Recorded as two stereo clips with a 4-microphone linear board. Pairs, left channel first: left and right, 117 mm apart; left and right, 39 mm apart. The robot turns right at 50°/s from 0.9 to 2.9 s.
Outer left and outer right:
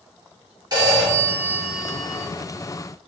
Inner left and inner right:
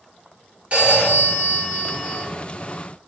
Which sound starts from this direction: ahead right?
A phone ringing, at 0.7 s.